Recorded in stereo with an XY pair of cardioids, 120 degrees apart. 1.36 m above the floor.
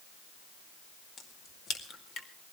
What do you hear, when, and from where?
1.2 s a crack: 55° left, 2 m